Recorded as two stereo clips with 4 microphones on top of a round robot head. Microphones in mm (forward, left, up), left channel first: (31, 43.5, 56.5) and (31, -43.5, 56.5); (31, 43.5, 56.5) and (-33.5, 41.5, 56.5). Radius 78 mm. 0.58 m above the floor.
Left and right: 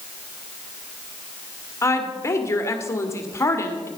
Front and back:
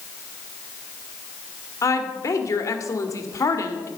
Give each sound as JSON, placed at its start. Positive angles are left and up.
{"t": 1.8, "sound": "a woman speaking", "azimuth_deg": 35, "distance_m": 1.8}